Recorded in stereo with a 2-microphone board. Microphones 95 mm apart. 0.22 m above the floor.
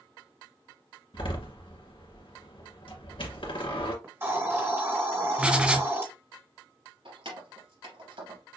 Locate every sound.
1.1 s a door slam: 65° left (ahead or behind), 2 m
4.0 s a hiss: 25° right (ahead or behind), 1.8 m
5.4 s writing: 15° right (ahead or behind), 1.2 m
7.0 s keys jangling: 70° right (ahead or behind), 3 m